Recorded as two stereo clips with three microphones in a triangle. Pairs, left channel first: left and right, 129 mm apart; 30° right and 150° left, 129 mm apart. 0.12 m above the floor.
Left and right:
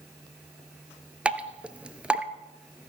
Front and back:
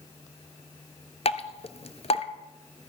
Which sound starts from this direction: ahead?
Dripping, at 1.2 s.